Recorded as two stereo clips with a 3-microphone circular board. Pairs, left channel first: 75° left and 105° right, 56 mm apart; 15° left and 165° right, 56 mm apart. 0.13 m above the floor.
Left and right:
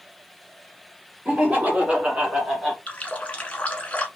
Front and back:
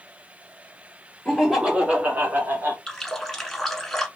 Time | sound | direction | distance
1.2 | laughter | 75° right | 1.6 m
2.9 | a running tap | 85° left | 0.9 m